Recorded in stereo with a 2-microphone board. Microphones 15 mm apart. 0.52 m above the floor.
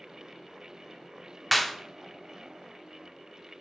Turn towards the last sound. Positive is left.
turn(degrees=-5)  # may be behind; listen again after turning